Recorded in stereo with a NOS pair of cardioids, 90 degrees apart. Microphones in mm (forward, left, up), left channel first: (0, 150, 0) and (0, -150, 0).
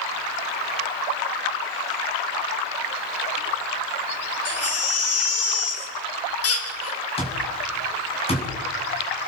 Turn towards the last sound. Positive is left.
turn(degrees=20)